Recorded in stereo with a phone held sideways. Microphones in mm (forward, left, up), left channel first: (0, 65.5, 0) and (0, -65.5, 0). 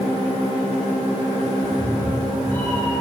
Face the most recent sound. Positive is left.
turn(degrees=15)  # may be behind; listen again after turning